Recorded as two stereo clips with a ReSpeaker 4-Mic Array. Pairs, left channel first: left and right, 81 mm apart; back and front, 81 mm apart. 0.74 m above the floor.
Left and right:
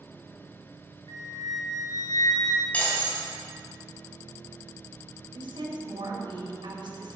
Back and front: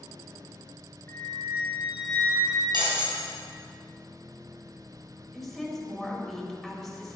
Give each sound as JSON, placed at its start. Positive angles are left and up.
{"t": 1.1, "sound": "a flute", "azimuth_deg": 120, "distance_m": 2.0}
{"t": 2.7, "sound": "breaking glass", "azimuth_deg": 20, "distance_m": 4.0}
{"t": 5.3, "sound": "a woman speaking", "azimuth_deg": -90, "distance_m": 3.0}